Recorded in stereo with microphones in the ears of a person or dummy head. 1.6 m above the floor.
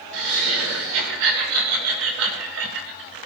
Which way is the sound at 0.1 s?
85° right.